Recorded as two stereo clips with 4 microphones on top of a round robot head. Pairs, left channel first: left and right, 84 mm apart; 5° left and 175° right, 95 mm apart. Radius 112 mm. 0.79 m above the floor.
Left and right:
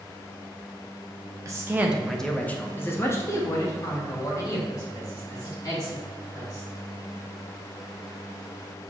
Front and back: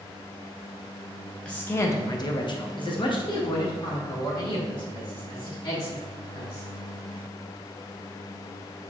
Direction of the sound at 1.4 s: 65° right.